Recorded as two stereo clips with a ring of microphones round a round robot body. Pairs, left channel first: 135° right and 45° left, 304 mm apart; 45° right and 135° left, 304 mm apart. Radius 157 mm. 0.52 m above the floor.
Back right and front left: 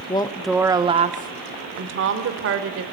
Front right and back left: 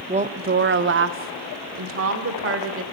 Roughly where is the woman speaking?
Behind.